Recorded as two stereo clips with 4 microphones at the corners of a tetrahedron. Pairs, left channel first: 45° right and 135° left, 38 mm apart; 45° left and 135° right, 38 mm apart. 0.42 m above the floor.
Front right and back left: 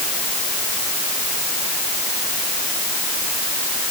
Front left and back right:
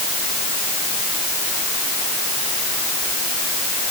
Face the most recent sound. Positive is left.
No sound to turn to.